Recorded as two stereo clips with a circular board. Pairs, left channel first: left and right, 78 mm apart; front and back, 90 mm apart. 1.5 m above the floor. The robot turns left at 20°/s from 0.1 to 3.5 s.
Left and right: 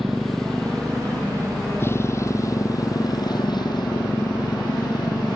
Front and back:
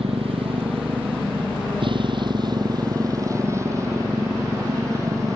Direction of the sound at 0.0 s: Straight behind.